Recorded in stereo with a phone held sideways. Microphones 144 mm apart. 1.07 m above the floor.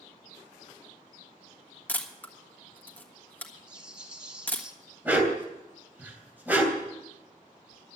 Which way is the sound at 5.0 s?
10° right (ahead or behind).